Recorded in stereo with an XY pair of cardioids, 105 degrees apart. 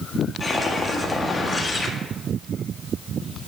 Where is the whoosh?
25° left, 1.5 m.